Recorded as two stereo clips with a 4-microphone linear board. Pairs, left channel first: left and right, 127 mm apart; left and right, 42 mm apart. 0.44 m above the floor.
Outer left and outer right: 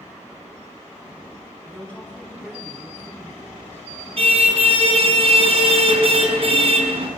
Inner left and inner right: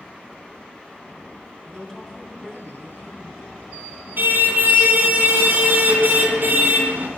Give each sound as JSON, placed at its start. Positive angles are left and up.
{"t": 1.6, "sound": "a woman speaking", "side_deg": 10, "distance_m": 3.5}
{"t": 4.2, "sound": "a car horn", "side_deg": -55, "distance_m": 2.5}